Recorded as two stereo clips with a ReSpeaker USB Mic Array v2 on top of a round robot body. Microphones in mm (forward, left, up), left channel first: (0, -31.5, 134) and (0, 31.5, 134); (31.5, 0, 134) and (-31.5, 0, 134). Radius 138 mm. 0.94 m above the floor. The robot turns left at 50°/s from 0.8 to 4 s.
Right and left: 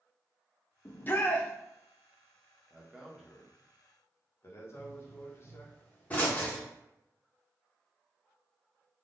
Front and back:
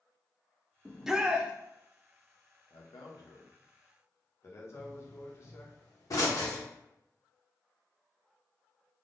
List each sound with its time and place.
0.8 s a shout: 90° right, 0.5 m; by 1.5 s 125° right, 0.5 m
2.7 s a man speaking: 20° left, 0.8 m; by 5.7 s 45° right, 0.8 m
4.7 s a pop: 25° right, 1.0 m